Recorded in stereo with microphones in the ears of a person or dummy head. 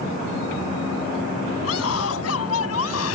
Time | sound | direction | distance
1.6 | a scream | 90° left | ?